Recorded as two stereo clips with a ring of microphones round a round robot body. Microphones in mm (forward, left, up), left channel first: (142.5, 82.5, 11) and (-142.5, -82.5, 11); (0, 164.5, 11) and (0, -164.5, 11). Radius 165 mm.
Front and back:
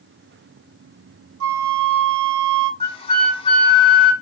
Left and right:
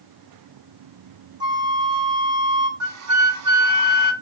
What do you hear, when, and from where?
1.4 s a flute: 160° right, 1.5 m
2.8 s a flute: 45° right, 2.0 m